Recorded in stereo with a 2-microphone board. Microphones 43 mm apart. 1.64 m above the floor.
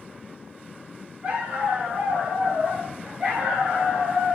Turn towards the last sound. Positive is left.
turn(degrees=-25)  # may be behind; listen again after turning